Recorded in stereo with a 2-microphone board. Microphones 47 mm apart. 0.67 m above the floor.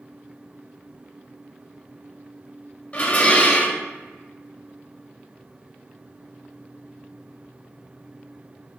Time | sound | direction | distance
2.9 | dishes clattering | 35° left (ahead or behind) | 0.6 m